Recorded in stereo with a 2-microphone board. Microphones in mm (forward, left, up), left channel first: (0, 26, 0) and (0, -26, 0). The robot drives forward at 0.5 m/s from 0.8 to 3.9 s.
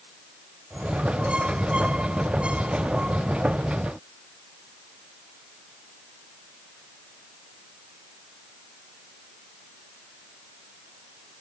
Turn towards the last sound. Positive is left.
No sound to turn to.